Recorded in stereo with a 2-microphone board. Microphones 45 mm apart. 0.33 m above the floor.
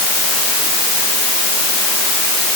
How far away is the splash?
I don't hear a splash.